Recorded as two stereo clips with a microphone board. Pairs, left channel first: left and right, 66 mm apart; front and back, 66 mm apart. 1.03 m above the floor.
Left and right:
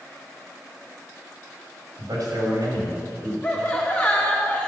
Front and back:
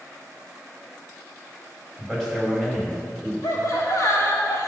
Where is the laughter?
20° left, 3 m.